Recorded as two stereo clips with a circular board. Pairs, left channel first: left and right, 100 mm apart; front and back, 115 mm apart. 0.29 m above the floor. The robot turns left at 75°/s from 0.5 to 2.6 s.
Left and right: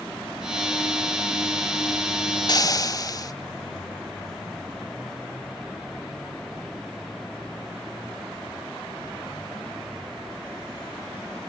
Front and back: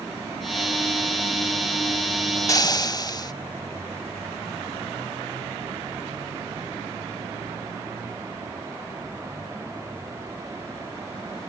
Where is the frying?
55° left, 0.6 m; by 3.3 s 45° left, 0.6 m.